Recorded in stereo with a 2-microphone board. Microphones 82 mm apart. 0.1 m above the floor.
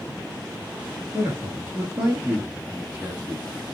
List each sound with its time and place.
1.1 s a man speaking: 25° right (ahead or behind), 1.4 m